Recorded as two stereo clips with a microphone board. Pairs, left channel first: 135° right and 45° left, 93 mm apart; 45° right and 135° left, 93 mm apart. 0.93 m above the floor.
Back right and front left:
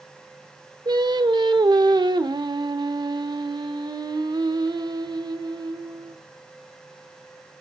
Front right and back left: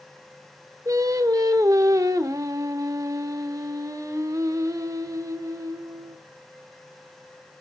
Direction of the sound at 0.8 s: 85° left.